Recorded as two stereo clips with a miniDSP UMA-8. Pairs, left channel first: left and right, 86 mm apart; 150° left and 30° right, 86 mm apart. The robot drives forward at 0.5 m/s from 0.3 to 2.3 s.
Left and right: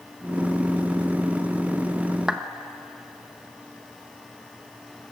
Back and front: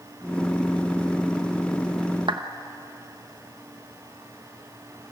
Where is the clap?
10° right, 1.3 m.